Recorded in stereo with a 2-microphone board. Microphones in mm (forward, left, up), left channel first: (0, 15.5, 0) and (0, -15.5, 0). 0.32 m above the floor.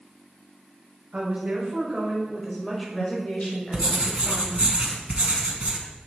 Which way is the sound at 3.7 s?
45° right (ahead or behind).